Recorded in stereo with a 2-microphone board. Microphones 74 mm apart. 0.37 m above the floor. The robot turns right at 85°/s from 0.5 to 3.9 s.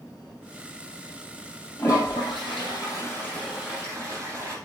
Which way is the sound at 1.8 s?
30° left.